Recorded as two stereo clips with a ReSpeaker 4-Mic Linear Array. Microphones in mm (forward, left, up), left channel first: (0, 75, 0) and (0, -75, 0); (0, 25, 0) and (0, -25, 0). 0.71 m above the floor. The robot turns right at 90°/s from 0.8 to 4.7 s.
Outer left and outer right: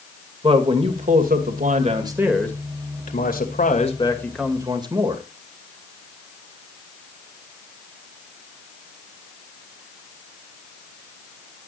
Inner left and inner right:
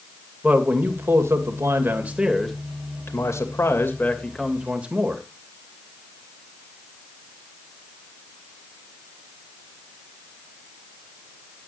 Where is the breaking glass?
I don't hear breaking glass.